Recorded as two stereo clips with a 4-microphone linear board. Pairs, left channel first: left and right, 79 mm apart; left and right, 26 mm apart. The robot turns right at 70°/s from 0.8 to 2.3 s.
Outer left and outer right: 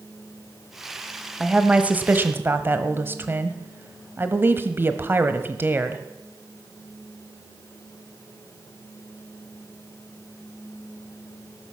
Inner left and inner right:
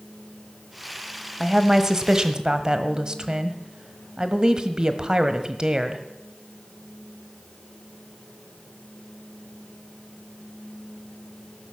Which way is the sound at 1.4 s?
5° right (ahead or behind).